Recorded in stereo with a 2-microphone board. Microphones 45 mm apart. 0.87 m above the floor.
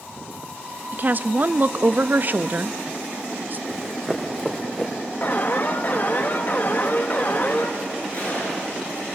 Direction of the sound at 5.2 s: 45° left (ahead or behind).